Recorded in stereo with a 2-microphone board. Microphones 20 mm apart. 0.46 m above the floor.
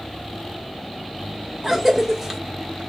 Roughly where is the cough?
Centre.